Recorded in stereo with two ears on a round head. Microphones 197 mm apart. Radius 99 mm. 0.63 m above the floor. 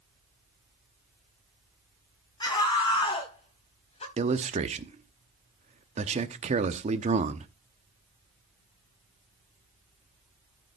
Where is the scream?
20° left (ahead or behind), 4.5 m; by 4.1 s 30° left (ahead or behind), 3.5 m.